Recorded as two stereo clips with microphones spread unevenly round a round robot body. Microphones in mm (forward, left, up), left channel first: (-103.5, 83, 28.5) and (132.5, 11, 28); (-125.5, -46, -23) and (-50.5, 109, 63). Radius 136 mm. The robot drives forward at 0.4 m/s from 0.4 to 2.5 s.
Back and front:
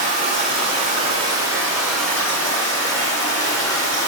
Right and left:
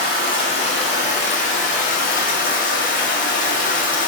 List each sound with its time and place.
0.0 s running water: 65° right, 1.0 m; by 4.1 s 120° right, 1.0 m